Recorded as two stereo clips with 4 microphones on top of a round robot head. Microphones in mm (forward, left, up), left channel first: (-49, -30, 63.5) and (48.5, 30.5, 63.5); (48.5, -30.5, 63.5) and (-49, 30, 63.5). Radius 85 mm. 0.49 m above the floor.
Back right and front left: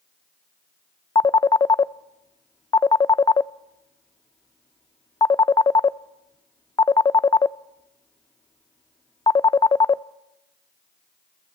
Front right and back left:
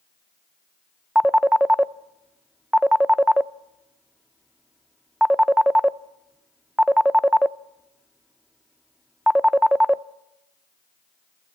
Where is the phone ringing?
130° right, 0.5 m.